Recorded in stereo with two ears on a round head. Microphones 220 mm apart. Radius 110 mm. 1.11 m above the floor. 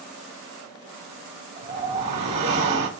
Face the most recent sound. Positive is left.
turn(degrees=-30)  # may be behind; listen again after turning